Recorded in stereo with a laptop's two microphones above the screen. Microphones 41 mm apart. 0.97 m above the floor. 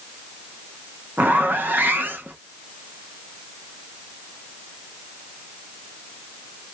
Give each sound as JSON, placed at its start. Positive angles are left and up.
{"t": 1.2, "sound": "a zipper", "side_deg": -50, "distance_m": 0.6}